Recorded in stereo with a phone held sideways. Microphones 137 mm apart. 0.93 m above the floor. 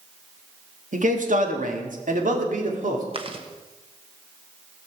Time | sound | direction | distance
0.9 | a man speaking | 70° right (ahead or behind) | 1.7 m
3.1 | chewing | 40° right (ahead or behind) | 1.2 m